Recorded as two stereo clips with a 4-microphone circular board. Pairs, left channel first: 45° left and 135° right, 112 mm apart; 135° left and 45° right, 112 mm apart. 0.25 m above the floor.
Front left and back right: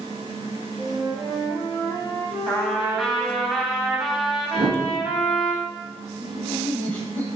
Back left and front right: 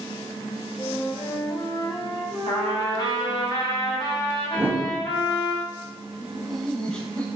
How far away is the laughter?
About 0.9 m.